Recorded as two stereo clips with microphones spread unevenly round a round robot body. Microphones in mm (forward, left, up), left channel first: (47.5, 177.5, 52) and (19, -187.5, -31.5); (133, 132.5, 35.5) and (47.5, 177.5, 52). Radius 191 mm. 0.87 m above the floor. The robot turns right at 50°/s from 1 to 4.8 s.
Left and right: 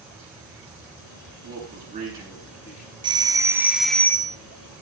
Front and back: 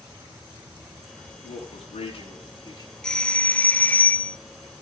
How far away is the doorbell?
About 0.7 m.